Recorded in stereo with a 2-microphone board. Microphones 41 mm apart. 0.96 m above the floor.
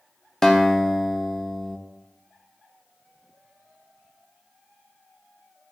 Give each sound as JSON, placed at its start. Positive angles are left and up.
{"t": 0.4, "sound": "a guitar", "side_deg": 10, "distance_m": 1.0}